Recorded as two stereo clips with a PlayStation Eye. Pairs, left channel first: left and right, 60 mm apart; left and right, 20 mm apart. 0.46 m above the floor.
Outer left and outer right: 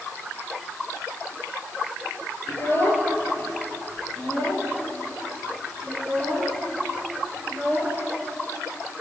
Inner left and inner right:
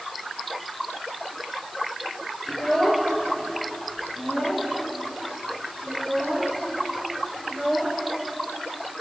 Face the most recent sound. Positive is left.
turn(degrees=15)  # may be behind; listen again after turning